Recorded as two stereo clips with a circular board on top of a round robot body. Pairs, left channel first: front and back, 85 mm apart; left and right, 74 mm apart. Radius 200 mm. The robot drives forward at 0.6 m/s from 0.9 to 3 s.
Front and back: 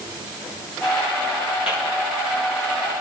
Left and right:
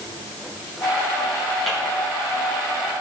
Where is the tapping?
Straight ahead, 8 m.